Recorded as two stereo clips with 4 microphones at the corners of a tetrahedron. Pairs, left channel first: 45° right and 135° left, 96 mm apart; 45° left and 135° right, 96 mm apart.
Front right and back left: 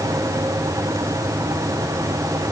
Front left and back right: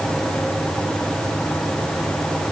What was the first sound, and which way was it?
Only background noise.